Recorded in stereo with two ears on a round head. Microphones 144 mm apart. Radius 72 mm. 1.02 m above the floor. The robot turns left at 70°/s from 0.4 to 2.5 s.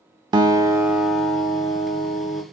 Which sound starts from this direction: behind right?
A guitar, at 0.3 s.